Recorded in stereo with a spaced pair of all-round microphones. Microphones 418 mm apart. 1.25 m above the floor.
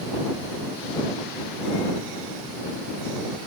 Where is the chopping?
No chopping in this recording.